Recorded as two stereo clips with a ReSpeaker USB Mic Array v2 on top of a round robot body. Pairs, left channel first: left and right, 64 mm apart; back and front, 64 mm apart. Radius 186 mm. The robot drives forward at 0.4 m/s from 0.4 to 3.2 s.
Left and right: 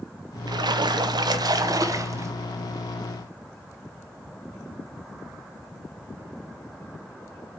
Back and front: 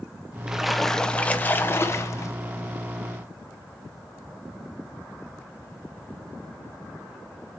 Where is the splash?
80° right, 0.6 m; by 2.3 s 135° right, 0.9 m.